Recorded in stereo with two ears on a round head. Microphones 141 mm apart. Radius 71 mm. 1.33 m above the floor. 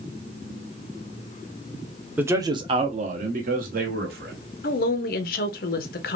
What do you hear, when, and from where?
2.2 s a man speaking: 10° right (ahead or behind), 0.6 m; by 4.3 s 70° right (ahead or behind), 1.4 m
4.6 s a woman speaking: 60° left (ahead or behind), 0.6 m